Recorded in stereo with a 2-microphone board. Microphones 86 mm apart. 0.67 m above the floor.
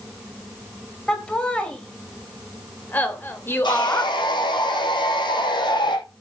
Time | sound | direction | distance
1.1 | laughter | 10° left (ahead or behind) | 4 m
3.6 | sawing | 55° left (ahead or behind) | 5.5 m